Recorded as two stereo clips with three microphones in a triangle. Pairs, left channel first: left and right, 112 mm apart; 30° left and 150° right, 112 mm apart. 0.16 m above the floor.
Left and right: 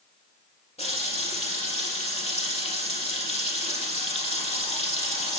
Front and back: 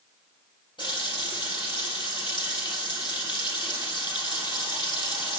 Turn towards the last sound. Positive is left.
turn(degrees=75)